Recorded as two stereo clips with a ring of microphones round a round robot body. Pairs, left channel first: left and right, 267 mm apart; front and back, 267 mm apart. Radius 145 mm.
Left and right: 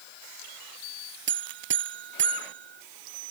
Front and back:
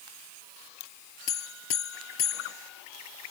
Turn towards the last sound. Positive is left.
turn(degrees=-40)